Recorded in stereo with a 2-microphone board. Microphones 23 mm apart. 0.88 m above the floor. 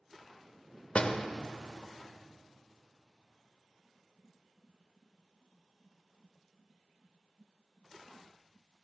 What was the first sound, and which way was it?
A door slam, 55° left (ahead or behind).